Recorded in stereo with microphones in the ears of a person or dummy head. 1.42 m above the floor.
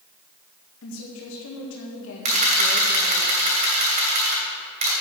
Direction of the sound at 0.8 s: 75° left (ahead or behind).